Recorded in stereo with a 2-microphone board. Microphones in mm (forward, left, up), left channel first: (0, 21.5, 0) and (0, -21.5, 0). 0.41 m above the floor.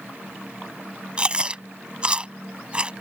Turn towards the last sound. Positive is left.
turn(degrees=-25)  # may be behind; listen again after turning